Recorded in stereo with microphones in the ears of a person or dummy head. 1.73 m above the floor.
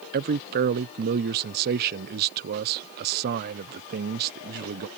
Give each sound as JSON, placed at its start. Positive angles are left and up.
{"t": 0.1, "sound": "a man speaking", "side_deg": -50}